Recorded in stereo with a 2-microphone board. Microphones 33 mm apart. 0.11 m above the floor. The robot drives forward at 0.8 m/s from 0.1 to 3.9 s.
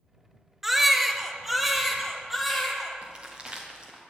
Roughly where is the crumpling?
Right.